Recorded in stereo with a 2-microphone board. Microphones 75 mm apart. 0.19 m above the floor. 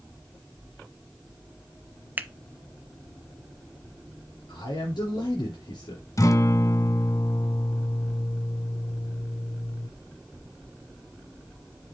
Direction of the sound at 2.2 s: 25° right (ahead or behind).